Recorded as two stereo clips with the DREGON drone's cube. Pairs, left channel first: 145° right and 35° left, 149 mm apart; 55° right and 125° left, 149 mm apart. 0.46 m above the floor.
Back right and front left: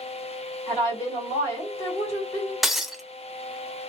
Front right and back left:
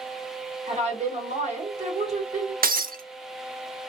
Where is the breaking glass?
125° left, 0.6 m.